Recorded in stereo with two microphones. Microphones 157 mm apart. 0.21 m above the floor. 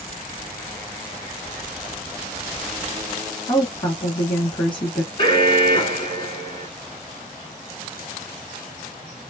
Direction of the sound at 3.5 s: 30° left (ahead or behind).